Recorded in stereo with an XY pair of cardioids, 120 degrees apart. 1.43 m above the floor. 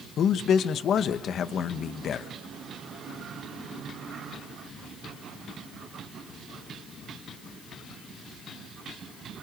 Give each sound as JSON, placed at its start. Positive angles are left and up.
{"t": 0.2, "sound": "a man speaking", "azimuth_deg": 55, "distance_m": 1.4}